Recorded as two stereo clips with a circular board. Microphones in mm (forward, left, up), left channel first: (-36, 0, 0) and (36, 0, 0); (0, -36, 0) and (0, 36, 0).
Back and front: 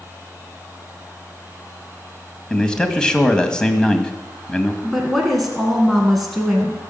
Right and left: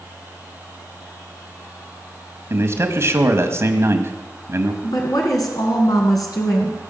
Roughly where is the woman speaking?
Right.